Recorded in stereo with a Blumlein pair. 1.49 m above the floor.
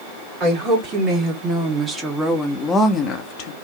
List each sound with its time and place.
0.4 s a woman speaking: 30° right, 1.8 m; by 3.5 s 45° left, 0.8 m